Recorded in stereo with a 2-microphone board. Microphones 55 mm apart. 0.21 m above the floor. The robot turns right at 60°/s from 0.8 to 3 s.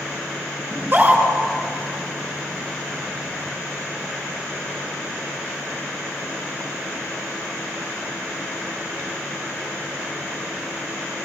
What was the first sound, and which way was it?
A scream, 45° right (ahead or behind).